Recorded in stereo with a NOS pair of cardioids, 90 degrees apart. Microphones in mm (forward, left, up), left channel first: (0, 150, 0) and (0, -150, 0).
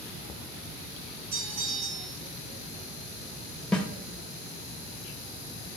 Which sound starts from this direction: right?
A bell, at 1.3 s.